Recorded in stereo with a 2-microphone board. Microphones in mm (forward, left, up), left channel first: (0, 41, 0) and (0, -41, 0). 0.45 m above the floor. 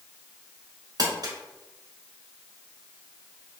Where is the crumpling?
50° right (ahead or behind), 0.8 m.